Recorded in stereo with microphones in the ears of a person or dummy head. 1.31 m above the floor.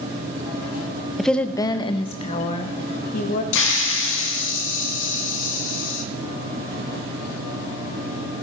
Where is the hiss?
70° left (ahead or behind), 2 m.